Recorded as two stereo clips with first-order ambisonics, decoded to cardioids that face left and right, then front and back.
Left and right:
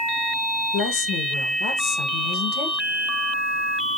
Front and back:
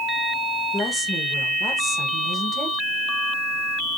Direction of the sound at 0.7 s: 90° left.